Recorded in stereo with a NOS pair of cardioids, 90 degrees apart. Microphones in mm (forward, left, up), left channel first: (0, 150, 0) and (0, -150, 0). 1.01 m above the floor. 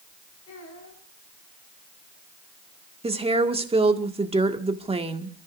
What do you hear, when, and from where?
0.5 s a child speaking: 55° left, 7 m
3.0 s a woman speaking: 20° right, 2.0 m